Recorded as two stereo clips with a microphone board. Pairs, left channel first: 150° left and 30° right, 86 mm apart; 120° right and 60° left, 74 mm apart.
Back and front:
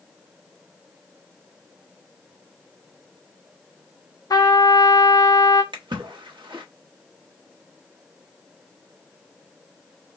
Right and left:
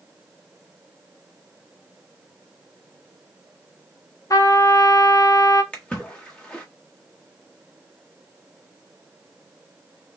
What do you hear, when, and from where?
4.3 s a trumpet: 165° right, 0.8 m
5.7 s a splash: 45° right, 1.2 m